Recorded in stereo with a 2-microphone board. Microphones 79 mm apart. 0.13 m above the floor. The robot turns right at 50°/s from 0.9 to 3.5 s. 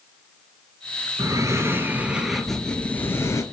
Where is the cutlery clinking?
No cutlery clinking in this recording.